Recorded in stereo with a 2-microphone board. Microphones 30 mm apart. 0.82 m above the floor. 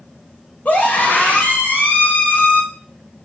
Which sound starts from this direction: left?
A scream, at 0.7 s.